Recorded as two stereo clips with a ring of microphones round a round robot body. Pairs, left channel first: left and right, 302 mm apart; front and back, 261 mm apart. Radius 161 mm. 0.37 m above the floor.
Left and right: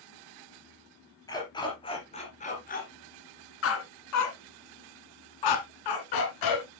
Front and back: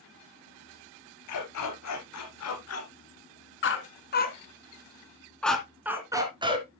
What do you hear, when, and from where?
1.3 s a dog barking: 10° left, 3.5 m; by 6.7 s 110° left, 2.5 m